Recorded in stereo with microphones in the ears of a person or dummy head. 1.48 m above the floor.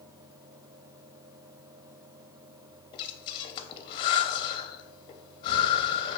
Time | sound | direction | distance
2.9 | breathing | 30° left (ahead or behind) | 0.6 m